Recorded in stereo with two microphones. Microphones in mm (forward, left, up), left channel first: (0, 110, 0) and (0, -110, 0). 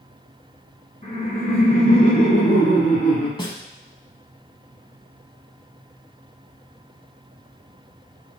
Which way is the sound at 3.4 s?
25° left (ahead or behind).